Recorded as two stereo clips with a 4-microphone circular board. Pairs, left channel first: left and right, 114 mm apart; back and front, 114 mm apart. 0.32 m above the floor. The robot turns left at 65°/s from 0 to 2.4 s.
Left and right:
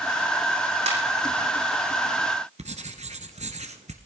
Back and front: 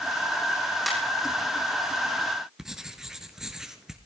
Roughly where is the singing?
I don't hear singing.